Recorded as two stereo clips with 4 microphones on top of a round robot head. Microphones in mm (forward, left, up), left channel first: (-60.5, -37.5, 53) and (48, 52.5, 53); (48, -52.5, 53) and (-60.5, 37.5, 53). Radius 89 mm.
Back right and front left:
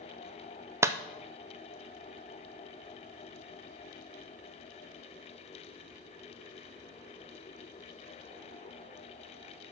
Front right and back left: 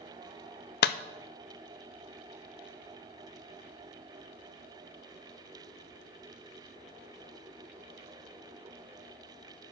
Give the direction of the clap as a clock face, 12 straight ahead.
1 o'clock.